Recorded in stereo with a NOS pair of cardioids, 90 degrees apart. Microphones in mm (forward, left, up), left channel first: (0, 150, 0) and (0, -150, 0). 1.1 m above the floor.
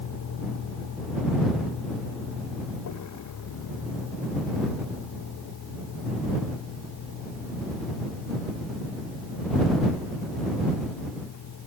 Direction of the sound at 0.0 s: 60° left.